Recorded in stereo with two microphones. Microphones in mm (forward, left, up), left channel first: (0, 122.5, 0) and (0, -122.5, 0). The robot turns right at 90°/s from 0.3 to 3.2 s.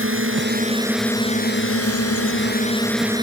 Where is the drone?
65° right; by 3.2 s 160° right.